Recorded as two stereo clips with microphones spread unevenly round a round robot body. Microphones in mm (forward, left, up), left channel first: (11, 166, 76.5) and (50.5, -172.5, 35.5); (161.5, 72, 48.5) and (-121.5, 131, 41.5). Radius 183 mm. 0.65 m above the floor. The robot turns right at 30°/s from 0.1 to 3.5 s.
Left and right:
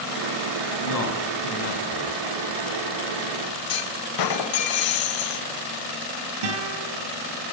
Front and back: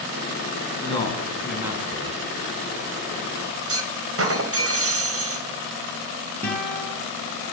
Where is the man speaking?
60° left, 7 m; by 2.2 s 105° left, 7 m.